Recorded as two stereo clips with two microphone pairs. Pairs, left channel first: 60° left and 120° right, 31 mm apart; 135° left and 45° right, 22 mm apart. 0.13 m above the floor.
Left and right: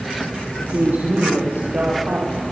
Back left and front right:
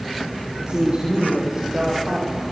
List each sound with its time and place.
0.6 s a woman speaking: 85° right, 6 m; by 2.4 s 110° right, 5.5 m